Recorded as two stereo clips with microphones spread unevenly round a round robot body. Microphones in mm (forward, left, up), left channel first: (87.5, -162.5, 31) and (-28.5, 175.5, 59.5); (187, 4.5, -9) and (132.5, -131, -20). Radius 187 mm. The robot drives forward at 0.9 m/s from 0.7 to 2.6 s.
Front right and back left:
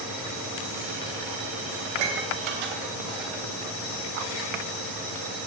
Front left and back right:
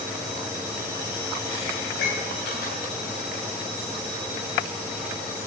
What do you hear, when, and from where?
1.9 s dishes clattering: 100° left, 3 m; by 3.5 s 110° left, 3 m